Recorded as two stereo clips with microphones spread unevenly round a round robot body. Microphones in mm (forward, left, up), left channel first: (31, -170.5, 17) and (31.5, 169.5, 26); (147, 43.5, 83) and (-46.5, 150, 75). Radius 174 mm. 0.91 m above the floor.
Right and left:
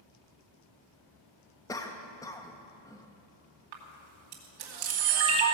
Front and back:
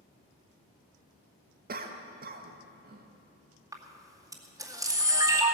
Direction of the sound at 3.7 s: 75° left.